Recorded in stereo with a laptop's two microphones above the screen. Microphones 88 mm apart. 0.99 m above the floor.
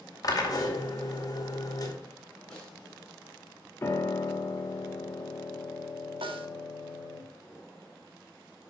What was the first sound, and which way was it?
A drill, 40° left (ahead or behind).